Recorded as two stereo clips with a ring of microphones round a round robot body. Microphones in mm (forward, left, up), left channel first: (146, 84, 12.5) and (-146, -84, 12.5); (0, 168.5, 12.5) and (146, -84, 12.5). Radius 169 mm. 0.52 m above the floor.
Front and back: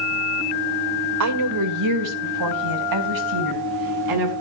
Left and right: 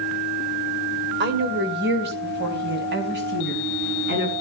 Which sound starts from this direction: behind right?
A woman speaking, at 1.2 s.